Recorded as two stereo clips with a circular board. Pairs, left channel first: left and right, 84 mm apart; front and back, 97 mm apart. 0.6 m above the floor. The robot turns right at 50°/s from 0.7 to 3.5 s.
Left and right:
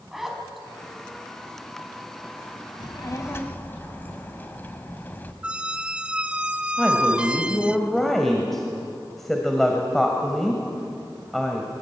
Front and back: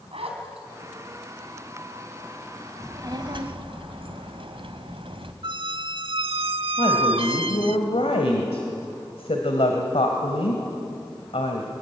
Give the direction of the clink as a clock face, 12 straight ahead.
No clink in this recording.